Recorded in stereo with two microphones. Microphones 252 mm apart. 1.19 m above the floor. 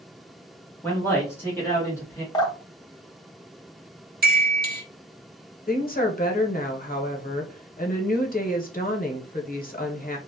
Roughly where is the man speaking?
Centre.